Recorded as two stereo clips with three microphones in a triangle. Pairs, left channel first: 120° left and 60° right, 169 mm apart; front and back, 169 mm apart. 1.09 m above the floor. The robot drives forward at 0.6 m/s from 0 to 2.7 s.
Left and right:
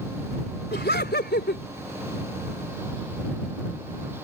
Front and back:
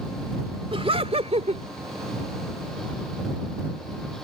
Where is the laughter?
125° left; by 1.6 s 130° left.